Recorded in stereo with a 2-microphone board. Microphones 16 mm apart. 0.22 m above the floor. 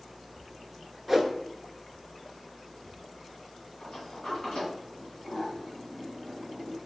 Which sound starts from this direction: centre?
A whoosh, at 1.1 s.